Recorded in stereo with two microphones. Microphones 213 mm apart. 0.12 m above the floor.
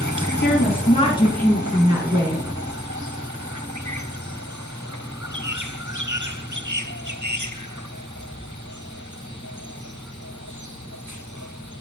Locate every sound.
0.4 s a woman speaking: 50° left (ahead or behind), 2.5 m; by 2.5 s 45° right (ahead or behind), 2 m